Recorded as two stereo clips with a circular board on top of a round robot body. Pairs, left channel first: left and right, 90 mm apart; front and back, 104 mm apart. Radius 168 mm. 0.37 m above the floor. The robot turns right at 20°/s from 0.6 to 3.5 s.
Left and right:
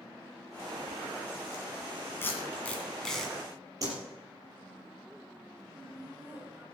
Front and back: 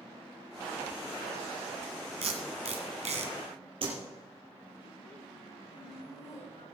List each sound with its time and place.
2.2 s tape being pulled: 155° left, 2.5 m; by 3.3 s straight behind, 2.5 m
3.8 s a whoosh: 145° right, 5 m
5.7 s laughter: 20° right, 5.5 m